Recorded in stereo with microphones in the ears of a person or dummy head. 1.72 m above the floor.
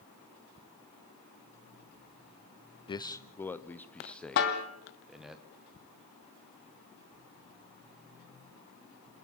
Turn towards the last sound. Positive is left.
turn(degrees=60)  # may be behind; listen again after turning